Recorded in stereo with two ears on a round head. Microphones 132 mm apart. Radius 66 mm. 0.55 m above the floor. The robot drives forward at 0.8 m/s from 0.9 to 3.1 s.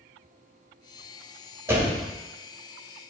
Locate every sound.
1.7 s a door slam: 20° right (ahead or behind), 1.5 m; by 2.0 s 15° right (ahead or behind), 1.8 m